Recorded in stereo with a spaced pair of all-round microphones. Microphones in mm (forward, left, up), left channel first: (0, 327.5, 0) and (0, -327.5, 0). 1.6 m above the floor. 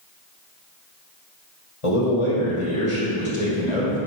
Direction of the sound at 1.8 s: 50° left (ahead or behind).